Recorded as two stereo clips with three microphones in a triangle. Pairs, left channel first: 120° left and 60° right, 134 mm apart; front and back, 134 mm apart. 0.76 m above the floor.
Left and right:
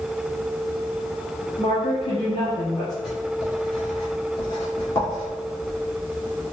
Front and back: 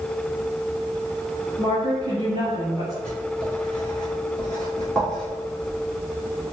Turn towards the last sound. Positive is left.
turn(degrees=80)